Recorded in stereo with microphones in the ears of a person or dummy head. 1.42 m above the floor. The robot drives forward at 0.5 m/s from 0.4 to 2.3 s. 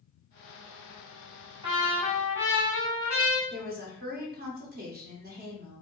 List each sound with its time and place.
1.6 s a trumpet: 25° right (ahead or behind), 2.0 m
3.5 s a woman speaking: 60° right (ahead or behind), 1.0 m